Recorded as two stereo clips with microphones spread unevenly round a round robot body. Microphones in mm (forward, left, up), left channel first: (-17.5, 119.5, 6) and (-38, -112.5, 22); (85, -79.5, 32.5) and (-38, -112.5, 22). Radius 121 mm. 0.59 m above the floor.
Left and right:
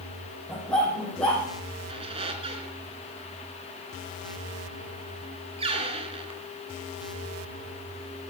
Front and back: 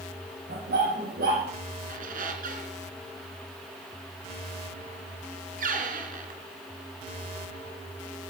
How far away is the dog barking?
About 8 m.